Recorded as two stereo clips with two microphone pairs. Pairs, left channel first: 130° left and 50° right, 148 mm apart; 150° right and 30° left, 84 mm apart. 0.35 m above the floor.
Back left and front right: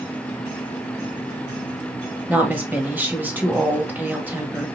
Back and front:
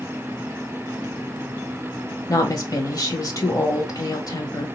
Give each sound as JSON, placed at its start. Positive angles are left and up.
{"t": 2.3, "sound": "a woman speaking", "azimuth_deg": -125, "distance_m": 1.4}